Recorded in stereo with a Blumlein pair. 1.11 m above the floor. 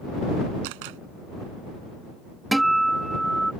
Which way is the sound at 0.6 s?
45° right.